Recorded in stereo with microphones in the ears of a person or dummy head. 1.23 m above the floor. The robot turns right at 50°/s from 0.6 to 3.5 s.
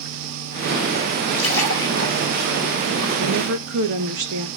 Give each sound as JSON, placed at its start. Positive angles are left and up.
{"t": 1.3, "sound": "a splash", "side_deg": 65, "distance_m": 5.5}
{"t": 3.2, "sound": "a woman speaking", "side_deg": -50, "distance_m": 1.8}